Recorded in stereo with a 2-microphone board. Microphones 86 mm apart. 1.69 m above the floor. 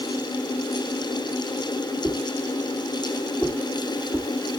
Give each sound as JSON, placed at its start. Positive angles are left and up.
{"t": 2.0, "sound": "a whoosh", "side_deg": 15, "distance_m": 1.4}